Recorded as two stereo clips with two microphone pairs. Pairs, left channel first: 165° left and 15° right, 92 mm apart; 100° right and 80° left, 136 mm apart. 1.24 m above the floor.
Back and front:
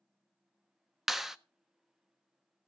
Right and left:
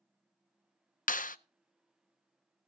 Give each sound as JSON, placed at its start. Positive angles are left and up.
{"t": 1.1, "sound": "a clap", "azimuth_deg": -105, "distance_m": 0.5}